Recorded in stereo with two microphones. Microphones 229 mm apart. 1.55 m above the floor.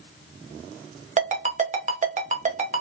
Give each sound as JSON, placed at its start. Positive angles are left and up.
{"t": 1.2, "sound": "a ringtone", "side_deg": -35, "distance_m": 0.6}